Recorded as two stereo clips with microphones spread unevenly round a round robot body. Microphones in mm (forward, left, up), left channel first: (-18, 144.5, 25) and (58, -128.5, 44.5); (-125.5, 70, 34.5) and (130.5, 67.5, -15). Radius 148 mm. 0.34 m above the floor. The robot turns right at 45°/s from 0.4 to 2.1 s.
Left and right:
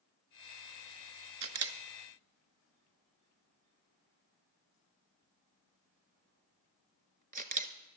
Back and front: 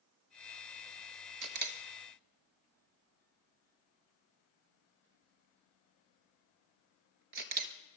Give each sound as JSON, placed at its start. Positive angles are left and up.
{"t": 1.4, "sound": "a camera shutter", "azimuth_deg": -45, "distance_m": 1.0}